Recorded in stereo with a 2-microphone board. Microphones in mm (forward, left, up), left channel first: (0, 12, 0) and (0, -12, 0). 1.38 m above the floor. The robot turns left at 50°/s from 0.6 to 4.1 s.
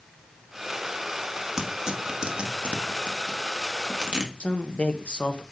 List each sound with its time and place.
1.6 s tearing paper: 10° right (ahead or behind), 1.4 m; by 4.3 s 40° right (ahead or behind), 1.4 m
4.4 s a man speaking: 50° left (ahead or behind), 0.9 m